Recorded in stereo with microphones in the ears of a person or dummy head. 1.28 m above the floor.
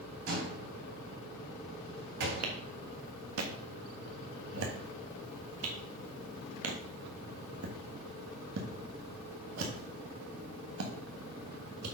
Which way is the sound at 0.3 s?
70° right (ahead or behind).